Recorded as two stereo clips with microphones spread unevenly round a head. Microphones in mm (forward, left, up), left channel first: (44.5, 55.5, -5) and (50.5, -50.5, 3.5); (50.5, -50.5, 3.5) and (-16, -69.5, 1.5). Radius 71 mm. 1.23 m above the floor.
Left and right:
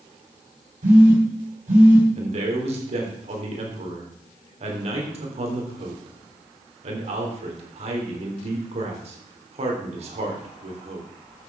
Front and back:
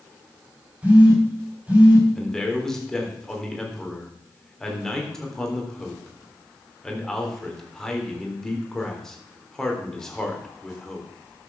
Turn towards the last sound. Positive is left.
turn(degrees=-65)